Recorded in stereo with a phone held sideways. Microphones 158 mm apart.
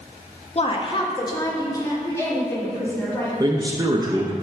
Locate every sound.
0.6 s a woman speaking: 40° left (ahead or behind), 0.7 m; by 3.3 s 15° left (ahead or behind), 2.5 m
3.4 s a man speaking: 25° right (ahead or behind), 0.6 m